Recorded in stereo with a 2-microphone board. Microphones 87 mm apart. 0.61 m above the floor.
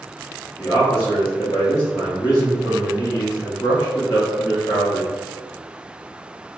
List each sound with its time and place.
0.6 s a man speaking: 40° left (ahead or behind), 0.8 m